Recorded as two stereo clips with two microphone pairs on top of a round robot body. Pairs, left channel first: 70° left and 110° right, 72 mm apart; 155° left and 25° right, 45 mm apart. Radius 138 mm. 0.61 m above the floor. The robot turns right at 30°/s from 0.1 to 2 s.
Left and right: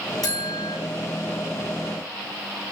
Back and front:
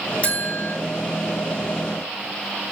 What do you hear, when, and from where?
0.2 s a buzzer: 95° left, 8.5 m; by 0.8 s 110° left, 8.5 m